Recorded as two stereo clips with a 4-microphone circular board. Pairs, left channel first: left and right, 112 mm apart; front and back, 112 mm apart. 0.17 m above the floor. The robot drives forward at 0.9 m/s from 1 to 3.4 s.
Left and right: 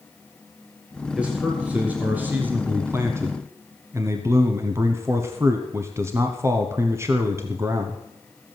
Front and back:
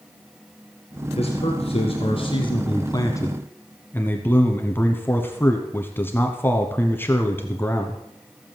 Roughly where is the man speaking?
Ahead.